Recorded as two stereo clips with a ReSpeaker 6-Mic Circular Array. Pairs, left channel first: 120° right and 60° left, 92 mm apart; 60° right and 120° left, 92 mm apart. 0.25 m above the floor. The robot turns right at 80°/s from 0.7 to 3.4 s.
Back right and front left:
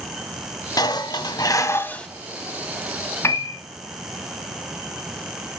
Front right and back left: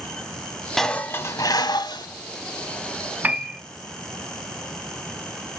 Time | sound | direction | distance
0.8 | dishes clattering | 145° right | 0.9 m
3.2 | a piano | 175° right | 0.8 m